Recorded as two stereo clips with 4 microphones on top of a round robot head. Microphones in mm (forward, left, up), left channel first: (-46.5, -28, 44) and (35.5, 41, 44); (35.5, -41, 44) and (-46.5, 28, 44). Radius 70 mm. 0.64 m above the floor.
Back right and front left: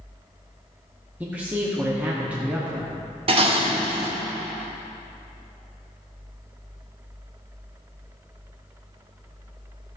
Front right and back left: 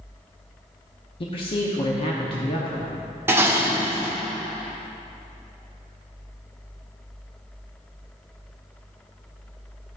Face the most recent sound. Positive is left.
turn(degrees=70)